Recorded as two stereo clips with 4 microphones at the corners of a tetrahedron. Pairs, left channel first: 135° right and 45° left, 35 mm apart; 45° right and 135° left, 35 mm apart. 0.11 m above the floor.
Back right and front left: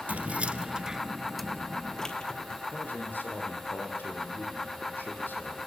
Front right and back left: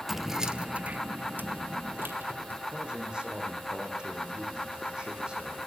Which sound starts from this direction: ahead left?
Keys jangling, at 0.1 s.